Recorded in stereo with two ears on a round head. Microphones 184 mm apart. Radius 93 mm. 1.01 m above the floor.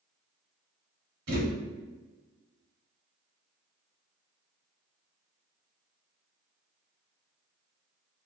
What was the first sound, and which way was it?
A thud, 50° right (ahead or behind).